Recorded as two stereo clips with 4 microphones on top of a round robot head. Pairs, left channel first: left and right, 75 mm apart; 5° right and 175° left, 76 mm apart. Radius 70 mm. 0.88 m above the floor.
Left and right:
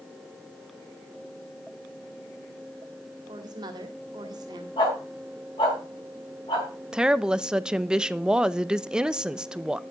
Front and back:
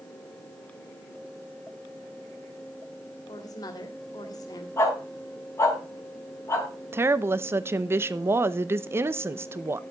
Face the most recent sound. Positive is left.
turn(degrees=-160)